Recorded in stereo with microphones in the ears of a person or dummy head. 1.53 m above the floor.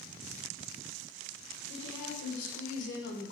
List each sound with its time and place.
1.7 s a woman speaking: 75° left (ahead or behind), 1.2 m; by 3.3 s 40° left (ahead or behind), 0.6 m